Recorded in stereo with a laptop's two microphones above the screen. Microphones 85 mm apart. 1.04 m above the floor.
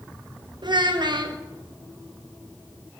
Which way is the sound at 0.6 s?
65° right (ahead or behind).